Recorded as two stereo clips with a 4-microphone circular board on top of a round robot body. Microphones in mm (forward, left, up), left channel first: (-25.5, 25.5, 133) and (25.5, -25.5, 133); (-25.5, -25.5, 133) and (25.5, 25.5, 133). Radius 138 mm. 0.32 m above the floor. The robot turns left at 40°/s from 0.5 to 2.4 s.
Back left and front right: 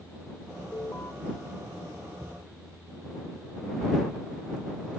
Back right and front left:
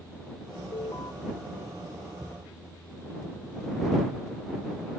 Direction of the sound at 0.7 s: 160° right.